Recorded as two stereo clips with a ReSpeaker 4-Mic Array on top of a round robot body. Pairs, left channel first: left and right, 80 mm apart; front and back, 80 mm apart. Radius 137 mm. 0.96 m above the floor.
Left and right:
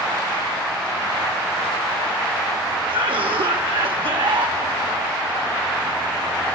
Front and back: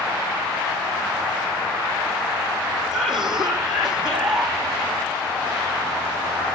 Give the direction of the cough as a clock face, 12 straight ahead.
3 o'clock.